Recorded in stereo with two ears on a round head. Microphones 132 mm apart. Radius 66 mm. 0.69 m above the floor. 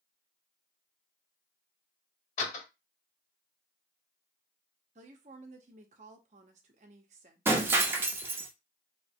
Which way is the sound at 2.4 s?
55° left (ahead or behind).